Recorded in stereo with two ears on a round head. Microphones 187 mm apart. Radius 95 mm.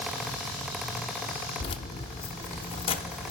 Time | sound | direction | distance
1.6 | keys jangling | 25° left (ahead or behind) | 0.6 m